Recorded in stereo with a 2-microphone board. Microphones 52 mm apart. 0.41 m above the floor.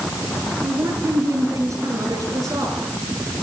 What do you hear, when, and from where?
0.6 s a woman speaking: 80° right, 7 m